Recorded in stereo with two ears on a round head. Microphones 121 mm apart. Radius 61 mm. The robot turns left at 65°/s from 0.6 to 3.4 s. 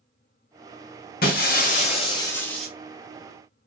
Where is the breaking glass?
95° left, 1.6 m; by 2.7 s straight ahead, 1.6 m.